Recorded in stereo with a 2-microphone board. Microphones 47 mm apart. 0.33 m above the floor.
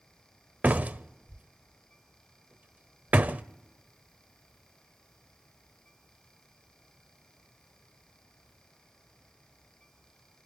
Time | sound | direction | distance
0.6 | a door slam | 35° right (ahead or behind) | 0.7 m